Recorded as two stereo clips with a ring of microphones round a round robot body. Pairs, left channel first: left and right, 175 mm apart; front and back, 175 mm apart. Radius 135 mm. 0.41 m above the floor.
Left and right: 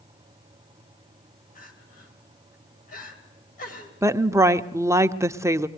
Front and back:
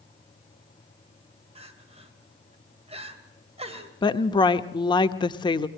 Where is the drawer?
I don't hear a drawer.